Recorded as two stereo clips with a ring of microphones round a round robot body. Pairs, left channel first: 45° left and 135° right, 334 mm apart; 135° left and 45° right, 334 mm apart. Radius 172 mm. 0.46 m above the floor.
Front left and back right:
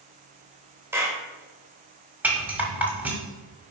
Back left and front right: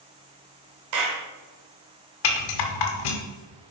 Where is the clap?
55° right, 1.9 m.